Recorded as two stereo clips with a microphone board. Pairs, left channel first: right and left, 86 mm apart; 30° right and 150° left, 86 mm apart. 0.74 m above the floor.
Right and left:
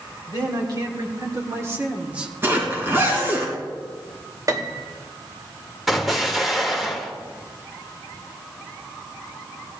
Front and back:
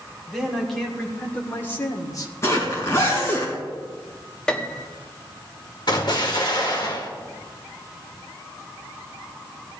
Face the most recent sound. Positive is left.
turn(degrees=0)